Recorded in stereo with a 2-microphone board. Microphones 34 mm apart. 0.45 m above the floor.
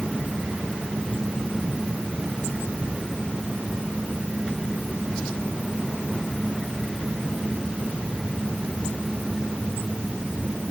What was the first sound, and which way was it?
Only background noise.